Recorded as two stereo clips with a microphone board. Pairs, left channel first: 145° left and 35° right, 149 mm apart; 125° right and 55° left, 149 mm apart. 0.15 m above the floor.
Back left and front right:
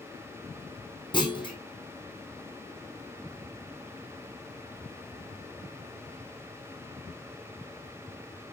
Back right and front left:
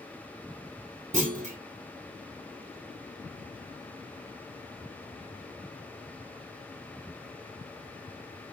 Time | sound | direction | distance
1.1 | a clunk | 90° left | 2.5 m